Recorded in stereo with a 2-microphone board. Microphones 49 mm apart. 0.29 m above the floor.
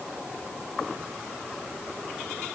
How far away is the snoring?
I don't hear snoring.